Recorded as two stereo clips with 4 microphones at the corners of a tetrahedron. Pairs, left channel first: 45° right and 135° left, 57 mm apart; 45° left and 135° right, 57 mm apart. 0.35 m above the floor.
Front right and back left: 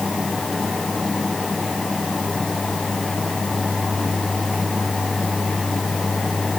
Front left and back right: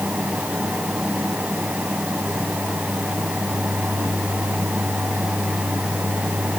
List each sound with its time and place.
Only background noise.